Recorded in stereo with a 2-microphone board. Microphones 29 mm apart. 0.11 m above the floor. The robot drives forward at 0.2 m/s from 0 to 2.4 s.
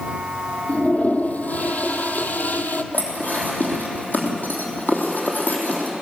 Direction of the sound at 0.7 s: 55° left (ahead or behind).